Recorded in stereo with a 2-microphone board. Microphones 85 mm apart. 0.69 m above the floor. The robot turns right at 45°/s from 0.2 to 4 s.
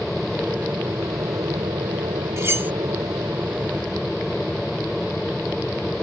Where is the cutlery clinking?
35° right (ahead or behind); by 2.7 s 20° right (ahead or behind).